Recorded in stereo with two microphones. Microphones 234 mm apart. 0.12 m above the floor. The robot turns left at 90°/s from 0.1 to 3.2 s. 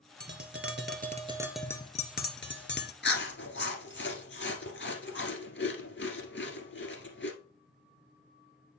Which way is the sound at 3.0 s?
50° left (ahead or behind).